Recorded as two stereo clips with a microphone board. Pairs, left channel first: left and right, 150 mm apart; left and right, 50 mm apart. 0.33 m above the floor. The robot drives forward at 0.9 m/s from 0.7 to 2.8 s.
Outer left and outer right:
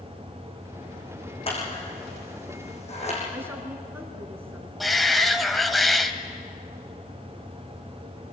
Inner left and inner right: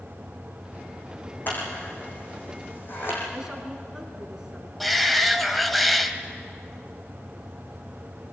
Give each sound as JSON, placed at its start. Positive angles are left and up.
{"t": 1.5, "sound": "scissors", "side_deg": 40, "distance_m": 7.5}
{"t": 3.3, "sound": "a woman speaking", "side_deg": -15, "distance_m": 3.0}
{"t": 4.8, "sound": "a shout", "side_deg": 0, "distance_m": 1.6}